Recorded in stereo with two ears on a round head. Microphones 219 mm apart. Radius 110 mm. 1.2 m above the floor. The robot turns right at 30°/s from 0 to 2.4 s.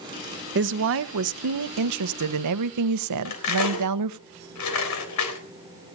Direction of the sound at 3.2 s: 80° left.